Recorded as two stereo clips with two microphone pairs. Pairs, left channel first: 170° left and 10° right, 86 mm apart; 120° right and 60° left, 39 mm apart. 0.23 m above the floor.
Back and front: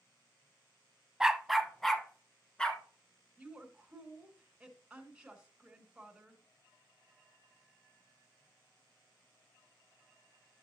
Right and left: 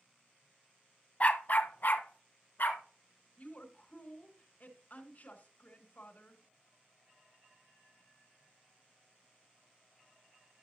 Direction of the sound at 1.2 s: 95° right.